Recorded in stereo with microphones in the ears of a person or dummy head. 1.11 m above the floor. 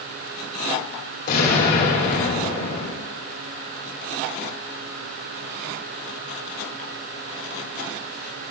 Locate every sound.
1.3 s an explosion: 65° left (ahead or behind), 3.5 m